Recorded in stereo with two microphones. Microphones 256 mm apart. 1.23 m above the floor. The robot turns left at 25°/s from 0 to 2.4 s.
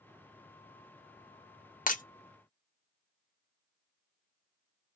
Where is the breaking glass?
35° left (ahead or behind), 0.5 m; by 2.0 s 30° left (ahead or behind), 0.5 m.